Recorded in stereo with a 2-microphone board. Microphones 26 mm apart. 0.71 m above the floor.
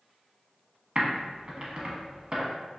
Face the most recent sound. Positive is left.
turn(degrees=-40)  # may be behind; listen again after turning